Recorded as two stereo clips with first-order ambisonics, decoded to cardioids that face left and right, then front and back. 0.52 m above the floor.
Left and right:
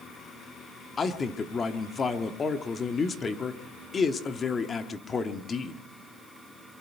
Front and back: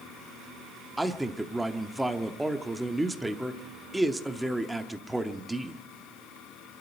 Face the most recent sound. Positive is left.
turn(degrees=105)